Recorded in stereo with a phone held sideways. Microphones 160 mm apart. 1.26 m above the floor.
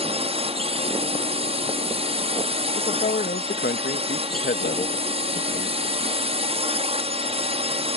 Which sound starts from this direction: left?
A man speaking, at 2.7 s.